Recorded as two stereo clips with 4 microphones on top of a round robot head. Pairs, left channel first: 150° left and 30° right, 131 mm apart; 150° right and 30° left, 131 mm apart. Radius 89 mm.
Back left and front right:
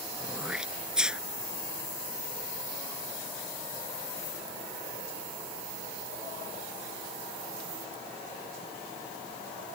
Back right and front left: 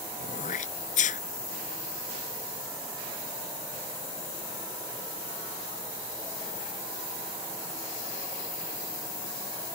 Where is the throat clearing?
115° right.